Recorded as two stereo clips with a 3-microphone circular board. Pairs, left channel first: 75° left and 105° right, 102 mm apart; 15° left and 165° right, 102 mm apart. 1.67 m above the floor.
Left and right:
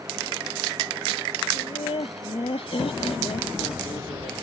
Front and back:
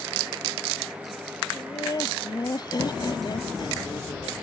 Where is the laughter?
65° left; by 4.3 s 60° left.